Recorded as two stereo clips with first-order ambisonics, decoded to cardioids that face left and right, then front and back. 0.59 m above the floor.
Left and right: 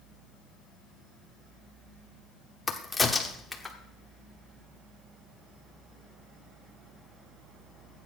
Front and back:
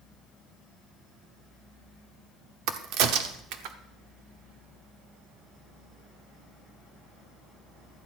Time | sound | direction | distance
2.7 | a crack | 175° left | 1.0 m